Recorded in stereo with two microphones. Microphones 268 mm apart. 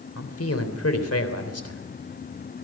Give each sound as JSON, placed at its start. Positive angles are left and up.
{"t": 0.1, "sound": "a man speaking", "side_deg": 65, "distance_m": 3.5}